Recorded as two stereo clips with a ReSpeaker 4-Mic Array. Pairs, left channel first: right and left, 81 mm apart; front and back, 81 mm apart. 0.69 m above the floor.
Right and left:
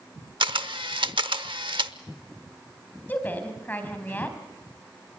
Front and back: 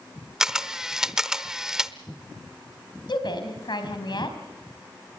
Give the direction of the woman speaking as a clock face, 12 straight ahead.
1 o'clock.